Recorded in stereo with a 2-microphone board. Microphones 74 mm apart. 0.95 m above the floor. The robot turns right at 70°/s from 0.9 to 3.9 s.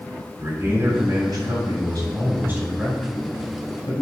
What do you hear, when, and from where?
0.4 s a man speaking: 140° right, 5 m; by 4.0 s 70° left, 5 m